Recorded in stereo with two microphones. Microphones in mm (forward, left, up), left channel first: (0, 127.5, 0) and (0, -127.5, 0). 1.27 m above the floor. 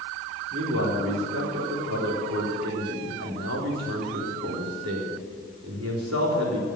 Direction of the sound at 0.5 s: 80° right.